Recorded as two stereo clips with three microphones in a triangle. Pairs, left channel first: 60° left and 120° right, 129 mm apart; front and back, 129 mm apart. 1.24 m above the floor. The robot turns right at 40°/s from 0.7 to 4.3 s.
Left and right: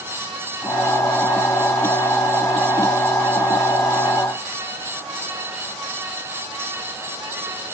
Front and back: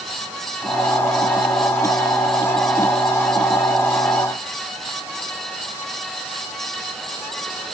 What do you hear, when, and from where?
Only background noise.